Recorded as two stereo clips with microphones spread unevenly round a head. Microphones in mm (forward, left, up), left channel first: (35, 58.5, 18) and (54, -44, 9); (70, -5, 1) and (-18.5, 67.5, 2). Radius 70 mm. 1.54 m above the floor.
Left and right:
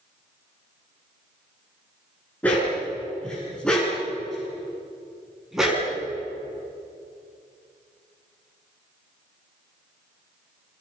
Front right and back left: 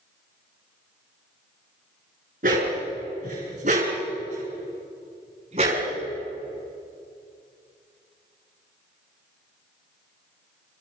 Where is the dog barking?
Straight behind, 7.5 m; by 5.8 s 165° right, 5.5 m.